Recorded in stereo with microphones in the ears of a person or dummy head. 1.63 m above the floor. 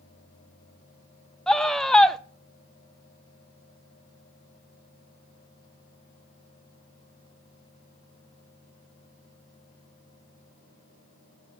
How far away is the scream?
About 0.5 m.